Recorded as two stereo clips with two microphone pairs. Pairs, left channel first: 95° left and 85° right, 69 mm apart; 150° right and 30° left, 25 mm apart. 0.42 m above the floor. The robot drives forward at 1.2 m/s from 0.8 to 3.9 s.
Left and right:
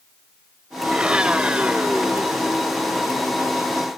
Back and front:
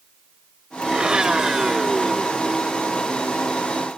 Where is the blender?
10° right; by 2.9 s 145° right.